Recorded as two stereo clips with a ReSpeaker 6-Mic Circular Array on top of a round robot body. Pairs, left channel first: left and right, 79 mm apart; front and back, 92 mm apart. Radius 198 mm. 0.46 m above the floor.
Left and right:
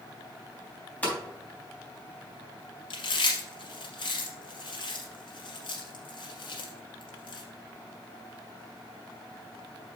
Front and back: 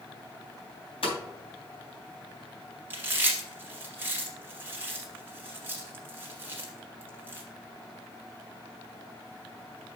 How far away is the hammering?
About 3.5 m.